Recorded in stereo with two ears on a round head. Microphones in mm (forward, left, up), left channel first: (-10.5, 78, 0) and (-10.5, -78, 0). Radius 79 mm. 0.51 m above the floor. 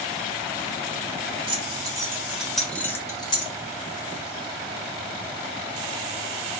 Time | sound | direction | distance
1.5 | keys jangling | 30° right (ahead or behind) | 1.2 m